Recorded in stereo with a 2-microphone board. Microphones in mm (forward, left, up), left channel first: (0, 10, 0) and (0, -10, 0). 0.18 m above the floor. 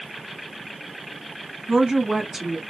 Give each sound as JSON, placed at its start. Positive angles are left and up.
{"t": 1.7, "sound": "a woman speaking", "side_deg": -25, "distance_m": 1.3}